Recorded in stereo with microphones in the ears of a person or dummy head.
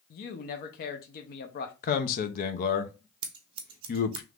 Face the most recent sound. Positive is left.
turn(degrees=-35)  # may be behind; listen again after turning